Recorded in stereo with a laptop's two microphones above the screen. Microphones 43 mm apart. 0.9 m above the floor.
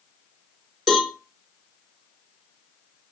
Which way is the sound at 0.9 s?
5° left (ahead or behind).